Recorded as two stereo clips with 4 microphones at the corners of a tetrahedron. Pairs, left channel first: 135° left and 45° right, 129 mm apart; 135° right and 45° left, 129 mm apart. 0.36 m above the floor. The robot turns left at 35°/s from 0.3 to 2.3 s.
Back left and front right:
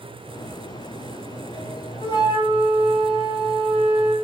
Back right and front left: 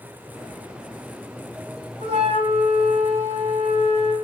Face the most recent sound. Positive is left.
turn(degrees=80)